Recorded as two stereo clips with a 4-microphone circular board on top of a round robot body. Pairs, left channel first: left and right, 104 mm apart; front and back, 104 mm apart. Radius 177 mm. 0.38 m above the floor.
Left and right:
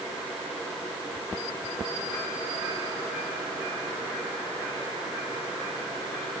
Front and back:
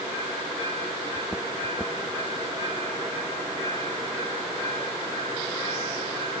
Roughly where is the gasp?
No gasp in this recording.